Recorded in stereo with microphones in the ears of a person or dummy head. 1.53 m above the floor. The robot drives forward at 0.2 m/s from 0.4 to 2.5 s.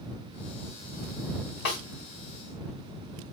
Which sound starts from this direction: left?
A snare drum, at 1.6 s.